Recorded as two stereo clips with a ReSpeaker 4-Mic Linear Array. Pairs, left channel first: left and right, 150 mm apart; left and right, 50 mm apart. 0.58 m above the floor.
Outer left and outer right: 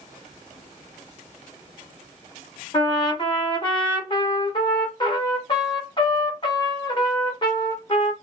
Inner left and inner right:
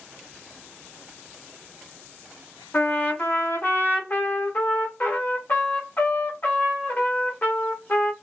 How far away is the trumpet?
About 0.9 m.